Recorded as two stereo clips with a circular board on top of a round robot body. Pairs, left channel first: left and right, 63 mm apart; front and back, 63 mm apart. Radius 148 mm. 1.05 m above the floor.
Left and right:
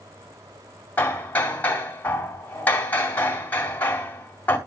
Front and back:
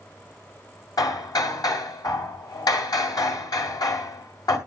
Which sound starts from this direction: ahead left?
Hammering, at 1.0 s.